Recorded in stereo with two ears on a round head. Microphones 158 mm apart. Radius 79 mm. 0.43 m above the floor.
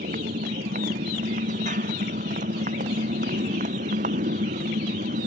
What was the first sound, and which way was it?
A motorcycle, 45° right (ahead or behind).